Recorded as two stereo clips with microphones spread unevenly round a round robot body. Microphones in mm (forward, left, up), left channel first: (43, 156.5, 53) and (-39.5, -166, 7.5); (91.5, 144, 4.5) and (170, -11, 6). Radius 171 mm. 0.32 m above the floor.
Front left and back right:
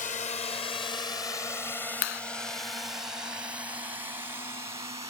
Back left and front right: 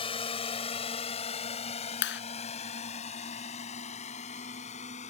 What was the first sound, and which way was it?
A drone, 135° left.